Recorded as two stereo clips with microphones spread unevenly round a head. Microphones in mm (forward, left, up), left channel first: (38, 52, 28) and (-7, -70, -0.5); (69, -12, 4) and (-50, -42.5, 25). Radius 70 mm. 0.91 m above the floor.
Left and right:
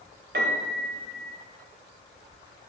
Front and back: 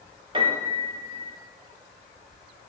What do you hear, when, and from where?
0.3 s a piano: 115° right, 0.8 m